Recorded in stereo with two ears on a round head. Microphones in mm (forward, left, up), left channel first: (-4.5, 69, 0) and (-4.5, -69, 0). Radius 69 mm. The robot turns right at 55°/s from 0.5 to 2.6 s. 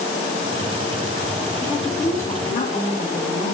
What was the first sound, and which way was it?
A woman speaking, 15° right.